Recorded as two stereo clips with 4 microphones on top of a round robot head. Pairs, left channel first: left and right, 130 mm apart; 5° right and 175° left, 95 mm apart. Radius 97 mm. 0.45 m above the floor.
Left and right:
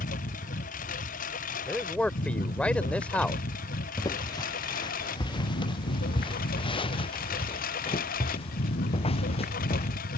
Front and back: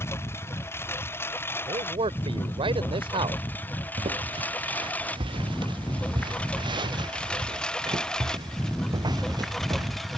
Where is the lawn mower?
60° left; by 10.2 s 85° left.